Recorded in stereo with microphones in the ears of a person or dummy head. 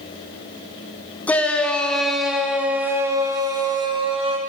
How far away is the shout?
About 2.5 m.